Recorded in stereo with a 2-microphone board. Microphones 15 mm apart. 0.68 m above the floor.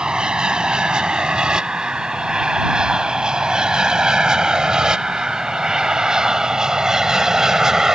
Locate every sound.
0.0 s an aircraft: 65° right (ahead or behind); by 8.0 s 35° right (ahead or behind)